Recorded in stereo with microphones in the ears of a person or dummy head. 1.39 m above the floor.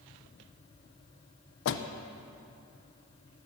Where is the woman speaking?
I don't hear a woman speaking.